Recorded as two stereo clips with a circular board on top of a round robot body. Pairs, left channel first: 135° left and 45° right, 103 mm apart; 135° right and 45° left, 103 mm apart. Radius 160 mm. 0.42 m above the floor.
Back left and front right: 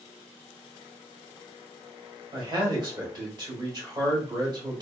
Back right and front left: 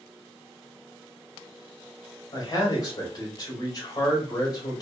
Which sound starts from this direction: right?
A man speaking, at 2.3 s.